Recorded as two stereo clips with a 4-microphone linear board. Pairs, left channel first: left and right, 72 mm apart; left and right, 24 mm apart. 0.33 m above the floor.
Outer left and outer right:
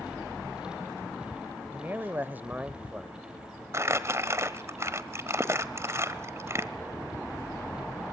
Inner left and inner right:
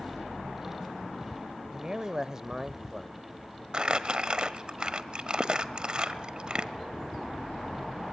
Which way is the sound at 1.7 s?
25° right (ahead or behind).